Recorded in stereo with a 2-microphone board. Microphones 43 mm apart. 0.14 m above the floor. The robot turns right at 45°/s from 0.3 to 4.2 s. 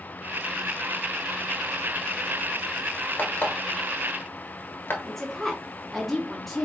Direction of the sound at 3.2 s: 45° left (ahead or behind).